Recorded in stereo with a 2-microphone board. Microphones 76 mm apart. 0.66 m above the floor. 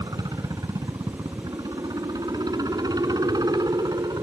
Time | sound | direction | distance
0.0 | a helicopter | 60° right (ahead or behind) | ?